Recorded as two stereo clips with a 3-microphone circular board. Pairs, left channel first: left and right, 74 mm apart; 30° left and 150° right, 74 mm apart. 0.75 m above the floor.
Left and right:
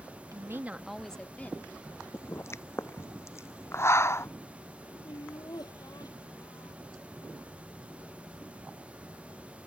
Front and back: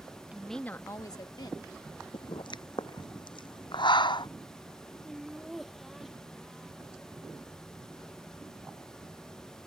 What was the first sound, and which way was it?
A woman speaking, 80° right.